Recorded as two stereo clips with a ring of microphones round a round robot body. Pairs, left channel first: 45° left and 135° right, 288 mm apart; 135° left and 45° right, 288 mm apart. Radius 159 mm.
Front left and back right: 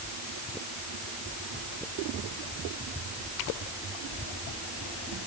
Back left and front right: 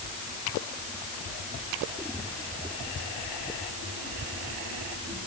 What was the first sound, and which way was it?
Only background noise.